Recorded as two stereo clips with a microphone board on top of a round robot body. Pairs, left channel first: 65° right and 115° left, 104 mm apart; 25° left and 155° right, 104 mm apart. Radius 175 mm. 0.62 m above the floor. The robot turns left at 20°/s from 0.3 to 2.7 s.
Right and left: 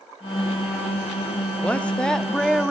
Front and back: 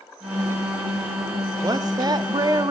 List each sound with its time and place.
1.6 s a woman speaking: 135° right, 1.3 m; by 2.7 s 160° right, 1.3 m